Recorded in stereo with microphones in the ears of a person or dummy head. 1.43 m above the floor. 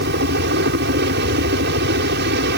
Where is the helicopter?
55° right (ahead or behind).